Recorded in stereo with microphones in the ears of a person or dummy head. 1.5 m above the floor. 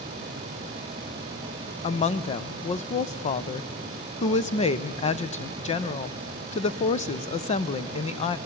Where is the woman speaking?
35° left (ahead or behind), 0.6 m.